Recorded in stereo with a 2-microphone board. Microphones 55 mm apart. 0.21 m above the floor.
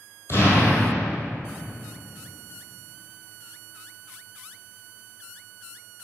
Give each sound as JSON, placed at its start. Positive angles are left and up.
{"t": 0.3, "sound": "an explosion", "side_deg": 55, "distance_m": 1.3}